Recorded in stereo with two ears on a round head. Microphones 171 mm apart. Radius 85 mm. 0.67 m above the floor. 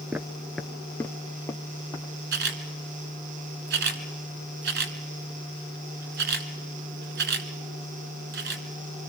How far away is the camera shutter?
About 1.5 m.